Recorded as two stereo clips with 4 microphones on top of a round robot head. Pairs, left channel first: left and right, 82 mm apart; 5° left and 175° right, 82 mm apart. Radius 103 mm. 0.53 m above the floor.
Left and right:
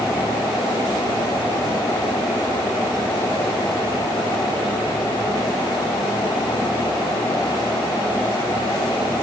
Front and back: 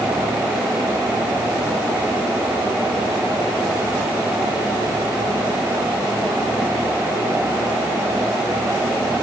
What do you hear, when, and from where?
Only background noise.